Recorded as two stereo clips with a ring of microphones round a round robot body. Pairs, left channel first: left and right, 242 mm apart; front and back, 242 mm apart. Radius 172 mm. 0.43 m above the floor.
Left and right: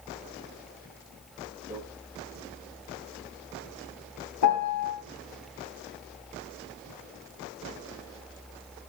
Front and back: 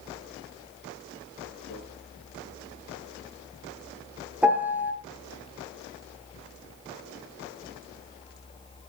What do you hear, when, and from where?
1.7 s a microwave: 10° right, 9.5 m
4.4 s a piano: 95° left, 2 m